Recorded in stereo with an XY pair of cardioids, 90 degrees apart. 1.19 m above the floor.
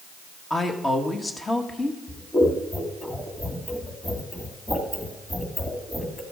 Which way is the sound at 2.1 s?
10° left.